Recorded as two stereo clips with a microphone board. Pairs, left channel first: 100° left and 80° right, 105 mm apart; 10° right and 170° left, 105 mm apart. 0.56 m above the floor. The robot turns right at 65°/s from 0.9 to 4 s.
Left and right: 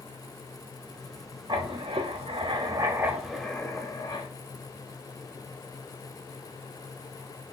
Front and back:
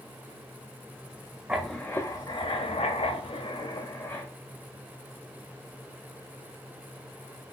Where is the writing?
110° right, 0.5 m; by 4.3 s 50° left, 0.5 m.